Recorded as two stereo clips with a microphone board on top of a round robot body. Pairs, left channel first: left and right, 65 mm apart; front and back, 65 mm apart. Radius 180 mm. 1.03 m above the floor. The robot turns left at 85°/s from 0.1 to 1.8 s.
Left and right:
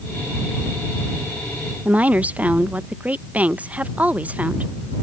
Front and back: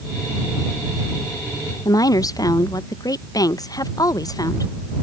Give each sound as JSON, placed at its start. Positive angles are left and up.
{"t": 1.9, "sound": "a woman speaking", "azimuth_deg": -20}